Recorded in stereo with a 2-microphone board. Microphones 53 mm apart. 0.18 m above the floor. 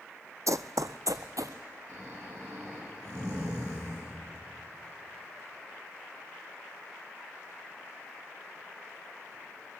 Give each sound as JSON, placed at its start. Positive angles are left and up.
{"t": 0.5, "sound": "running footsteps", "side_deg": -75, "distance_m": 0.5}
{"t": 1.9, "sound": "snoring", "side_deg": -65, "distance_m": 9.0}